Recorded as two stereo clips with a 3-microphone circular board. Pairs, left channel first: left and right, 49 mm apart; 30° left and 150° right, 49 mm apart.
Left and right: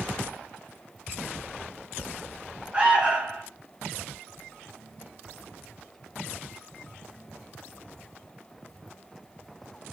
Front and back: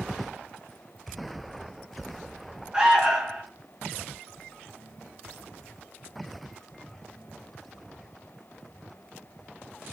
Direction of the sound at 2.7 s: 100° right.